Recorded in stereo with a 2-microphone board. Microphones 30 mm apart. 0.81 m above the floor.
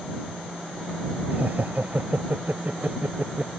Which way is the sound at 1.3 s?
65° right (ahead or behind).